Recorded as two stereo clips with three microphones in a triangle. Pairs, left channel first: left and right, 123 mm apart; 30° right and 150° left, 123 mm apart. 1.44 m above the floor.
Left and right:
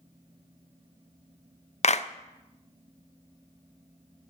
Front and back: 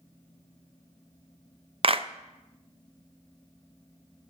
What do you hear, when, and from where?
1.8 s a clap: 110° left, 0.6 m